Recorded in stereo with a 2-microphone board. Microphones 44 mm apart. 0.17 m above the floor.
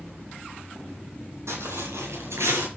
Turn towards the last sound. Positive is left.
turn(degrees=-85)